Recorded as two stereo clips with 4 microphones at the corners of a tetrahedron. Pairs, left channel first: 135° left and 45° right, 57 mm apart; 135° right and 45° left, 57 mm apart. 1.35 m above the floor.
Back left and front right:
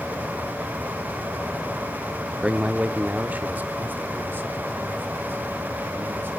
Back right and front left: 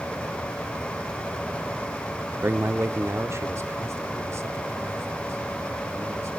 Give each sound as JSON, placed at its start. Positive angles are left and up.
{"t": 2.4, "sound": "a man speaking", "azimuth_deg": 25, "distance_m": 0.6}